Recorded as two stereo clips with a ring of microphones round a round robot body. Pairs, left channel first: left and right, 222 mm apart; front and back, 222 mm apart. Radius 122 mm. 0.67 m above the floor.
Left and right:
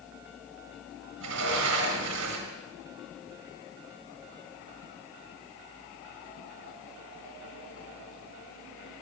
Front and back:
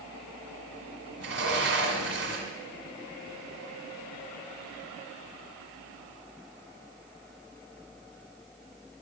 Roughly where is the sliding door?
Behind right.